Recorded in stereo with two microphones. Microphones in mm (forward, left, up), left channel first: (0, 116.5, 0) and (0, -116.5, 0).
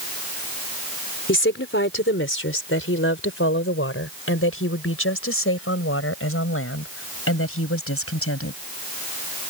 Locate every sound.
1.3 s a woman speaking: 60° left (ahead or behind); by 8.6 s 80° left